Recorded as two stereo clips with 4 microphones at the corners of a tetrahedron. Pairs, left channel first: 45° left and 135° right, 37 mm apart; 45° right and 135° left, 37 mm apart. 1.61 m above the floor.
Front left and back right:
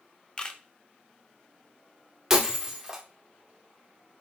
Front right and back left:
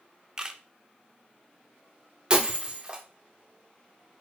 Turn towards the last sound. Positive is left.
turn(degrees=160)